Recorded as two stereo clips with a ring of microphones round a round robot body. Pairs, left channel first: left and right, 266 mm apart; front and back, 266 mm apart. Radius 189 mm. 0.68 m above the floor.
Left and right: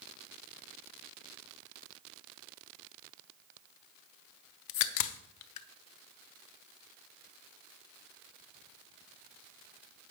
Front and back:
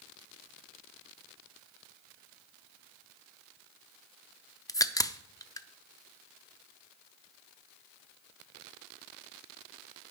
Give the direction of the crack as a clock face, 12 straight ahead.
9 o'clock.